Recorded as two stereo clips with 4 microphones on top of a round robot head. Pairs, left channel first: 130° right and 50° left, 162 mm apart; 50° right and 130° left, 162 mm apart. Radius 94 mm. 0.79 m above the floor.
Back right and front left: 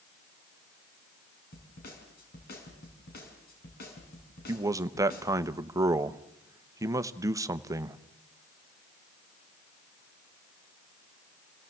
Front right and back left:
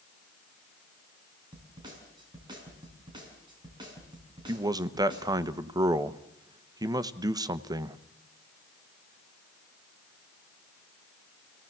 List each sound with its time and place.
1.5 s a snare drum: 165° right, 5 m
4.5 s a man speaking: 95° left, 0.9 m